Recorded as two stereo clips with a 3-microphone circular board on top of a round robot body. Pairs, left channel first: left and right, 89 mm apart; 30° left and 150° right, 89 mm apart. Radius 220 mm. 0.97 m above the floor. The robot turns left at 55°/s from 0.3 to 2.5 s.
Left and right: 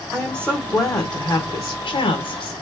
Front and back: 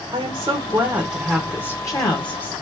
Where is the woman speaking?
170° left, 1.5 m; by 2.5 s 50° left, 1.5 m.